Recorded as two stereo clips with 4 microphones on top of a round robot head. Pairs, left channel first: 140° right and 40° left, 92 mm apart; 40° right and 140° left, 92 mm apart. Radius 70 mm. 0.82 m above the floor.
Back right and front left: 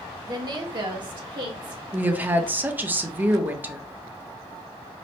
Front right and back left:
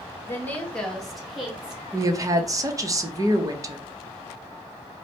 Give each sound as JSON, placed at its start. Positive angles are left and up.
{"t": 0.2, "sound": "a woman speaking", "azimuth_deg": 15, "distance_m": 1.3}
{"t": 1.9, "sound": "a woman speaking", "azimuth_deg": 105, "distance_m": 0.9}